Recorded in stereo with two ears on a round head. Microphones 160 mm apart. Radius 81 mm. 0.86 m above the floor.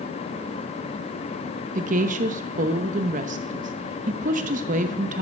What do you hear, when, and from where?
1.8 s a woman speaking: 40° right (ahead or behind), 0.8 m